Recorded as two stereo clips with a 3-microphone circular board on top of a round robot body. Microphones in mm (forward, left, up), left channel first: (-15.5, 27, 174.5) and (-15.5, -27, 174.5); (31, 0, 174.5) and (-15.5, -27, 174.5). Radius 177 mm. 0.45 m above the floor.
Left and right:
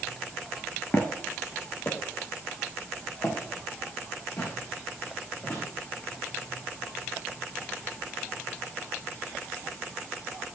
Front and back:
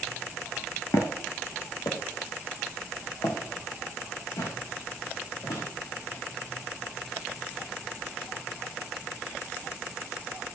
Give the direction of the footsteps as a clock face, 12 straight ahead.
11 o'clock.